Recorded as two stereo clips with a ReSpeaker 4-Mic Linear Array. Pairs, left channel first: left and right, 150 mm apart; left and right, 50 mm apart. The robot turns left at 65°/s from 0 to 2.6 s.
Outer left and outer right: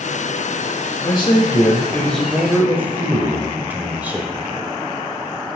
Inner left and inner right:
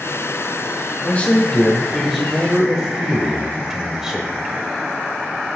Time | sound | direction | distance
1.0 | a man speaking | 80° left | 0.9 m